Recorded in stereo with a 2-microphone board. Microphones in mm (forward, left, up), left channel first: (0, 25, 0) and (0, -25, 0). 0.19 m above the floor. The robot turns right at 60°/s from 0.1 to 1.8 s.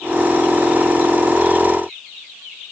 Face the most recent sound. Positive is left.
No sound to turn to.